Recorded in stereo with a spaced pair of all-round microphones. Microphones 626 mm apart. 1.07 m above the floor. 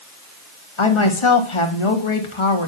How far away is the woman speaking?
About 1.4 m.